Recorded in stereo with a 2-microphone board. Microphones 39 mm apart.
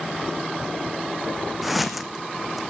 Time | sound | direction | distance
1.6 | footsteps | 5° right (ahead or behind) | 1.3 m